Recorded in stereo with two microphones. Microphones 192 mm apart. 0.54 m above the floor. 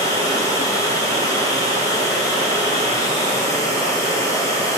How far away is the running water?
About 2.5 m.